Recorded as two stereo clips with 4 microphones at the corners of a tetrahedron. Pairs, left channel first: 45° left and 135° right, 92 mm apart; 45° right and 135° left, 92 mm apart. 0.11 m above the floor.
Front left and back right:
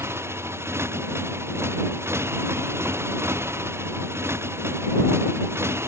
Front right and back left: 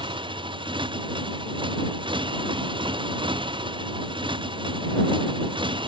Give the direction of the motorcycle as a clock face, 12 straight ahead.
7 o'clock.